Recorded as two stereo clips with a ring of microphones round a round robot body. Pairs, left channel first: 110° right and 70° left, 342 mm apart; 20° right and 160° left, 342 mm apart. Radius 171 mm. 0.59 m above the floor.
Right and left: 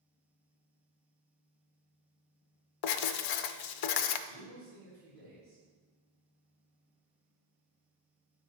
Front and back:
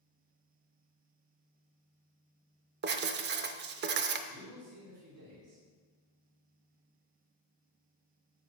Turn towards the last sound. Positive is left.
turn(degrees=-175)